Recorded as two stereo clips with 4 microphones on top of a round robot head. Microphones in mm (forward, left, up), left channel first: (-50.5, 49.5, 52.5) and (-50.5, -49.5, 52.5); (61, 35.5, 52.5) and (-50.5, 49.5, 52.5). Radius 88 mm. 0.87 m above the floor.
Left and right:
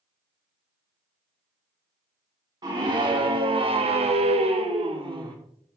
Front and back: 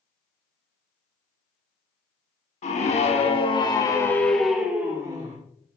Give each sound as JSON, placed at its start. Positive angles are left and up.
{"t": 2.6, "sound": "a scream", "azimuth_deg": -35, "distance_m": 3.0}